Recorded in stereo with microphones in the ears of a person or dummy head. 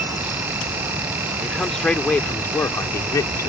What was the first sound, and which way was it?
A man speaking, 5° left (ahead or behind).